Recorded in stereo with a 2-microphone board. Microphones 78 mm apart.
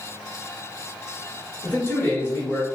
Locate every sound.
1.6 s a man speaking: 25° left (ahead or behind), 1.3 m